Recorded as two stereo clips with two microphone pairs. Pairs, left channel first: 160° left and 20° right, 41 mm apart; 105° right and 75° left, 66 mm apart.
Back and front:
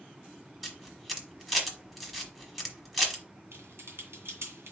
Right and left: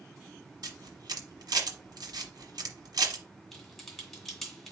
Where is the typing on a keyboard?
15° right, 1.7 m.